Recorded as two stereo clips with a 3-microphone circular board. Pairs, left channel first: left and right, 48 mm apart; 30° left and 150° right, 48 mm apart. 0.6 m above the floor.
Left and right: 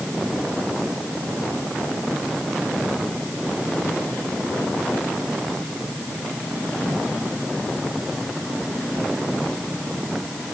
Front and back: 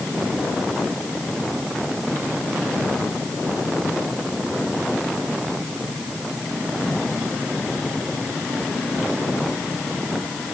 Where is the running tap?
No running tap in this recording.